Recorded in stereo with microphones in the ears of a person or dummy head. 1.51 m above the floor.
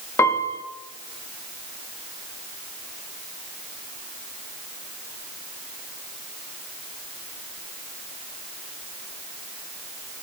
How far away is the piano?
About 0.7 m.